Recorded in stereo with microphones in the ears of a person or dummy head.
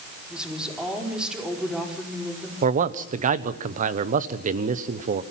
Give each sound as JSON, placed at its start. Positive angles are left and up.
{"t": 0.3, "sound": "a woman speaking", "side_deg": -5, "distance_m": 5.0}
{"t": 2.6, "sound": "a man speaking", "side_deg": -45, "distance_m": 1.1}